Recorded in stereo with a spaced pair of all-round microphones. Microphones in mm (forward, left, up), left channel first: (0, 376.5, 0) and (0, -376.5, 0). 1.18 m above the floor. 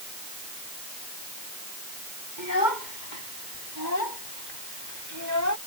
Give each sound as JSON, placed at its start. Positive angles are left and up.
{"t": 2.4, "sound": "a child speaking", "side_deg": 85}